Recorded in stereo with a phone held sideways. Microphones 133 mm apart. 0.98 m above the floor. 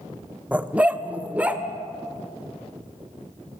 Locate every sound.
0.5 s a dog barking: 10° right (ahead or behind), 0.6 m